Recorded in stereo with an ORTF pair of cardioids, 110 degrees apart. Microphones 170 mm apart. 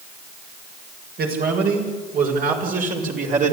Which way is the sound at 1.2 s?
60° right.